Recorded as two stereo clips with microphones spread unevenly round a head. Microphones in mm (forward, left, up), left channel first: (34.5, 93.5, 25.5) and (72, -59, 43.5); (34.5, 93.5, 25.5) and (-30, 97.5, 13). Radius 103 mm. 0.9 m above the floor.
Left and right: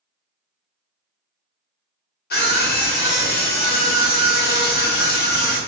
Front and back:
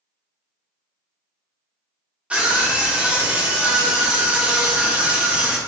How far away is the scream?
About 1.2 m.